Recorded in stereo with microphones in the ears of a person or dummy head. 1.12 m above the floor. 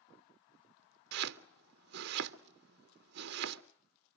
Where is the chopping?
55° right (ahead or behind), 0.6 m.